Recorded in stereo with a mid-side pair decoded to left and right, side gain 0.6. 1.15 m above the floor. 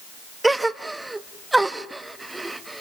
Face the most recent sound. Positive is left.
turn(degrees=-10)